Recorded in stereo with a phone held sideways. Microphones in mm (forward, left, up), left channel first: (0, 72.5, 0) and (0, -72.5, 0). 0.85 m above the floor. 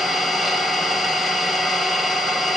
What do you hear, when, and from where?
0.0 s an engine running: centre (ahead or behind), 2.5 m